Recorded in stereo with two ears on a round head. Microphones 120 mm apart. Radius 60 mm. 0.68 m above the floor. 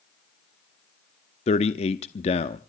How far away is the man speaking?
About 0.8 m.